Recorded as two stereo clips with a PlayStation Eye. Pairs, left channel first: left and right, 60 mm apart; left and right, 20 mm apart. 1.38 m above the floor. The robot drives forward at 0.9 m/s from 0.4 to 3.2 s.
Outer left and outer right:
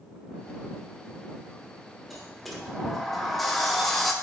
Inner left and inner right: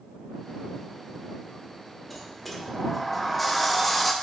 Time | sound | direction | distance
2.1 | a sliding door | centre (ahead or behind) | 1.1 m